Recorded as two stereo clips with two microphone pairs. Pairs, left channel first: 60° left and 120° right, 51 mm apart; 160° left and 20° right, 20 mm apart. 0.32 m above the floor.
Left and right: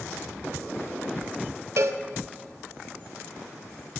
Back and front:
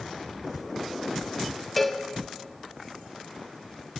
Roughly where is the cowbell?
Behind right.